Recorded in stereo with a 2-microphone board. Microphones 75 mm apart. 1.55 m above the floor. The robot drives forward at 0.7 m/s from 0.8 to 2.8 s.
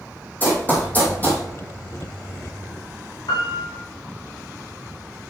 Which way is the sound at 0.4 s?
25° left (ahead or behind).